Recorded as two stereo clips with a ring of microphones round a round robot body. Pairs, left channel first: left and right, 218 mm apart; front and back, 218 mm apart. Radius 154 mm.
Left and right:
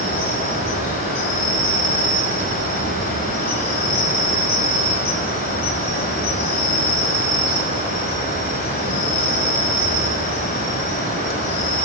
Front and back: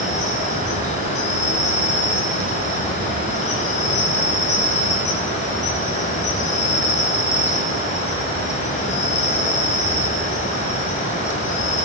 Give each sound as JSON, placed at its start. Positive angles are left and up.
{"t": 0.0, "sound": "an insect", "azimuth_deg": 50, "distance_m": 2.0}